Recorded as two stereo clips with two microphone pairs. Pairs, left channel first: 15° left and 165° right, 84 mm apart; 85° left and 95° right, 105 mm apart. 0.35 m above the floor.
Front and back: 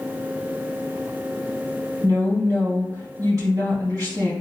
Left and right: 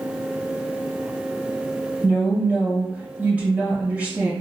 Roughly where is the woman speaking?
Behind.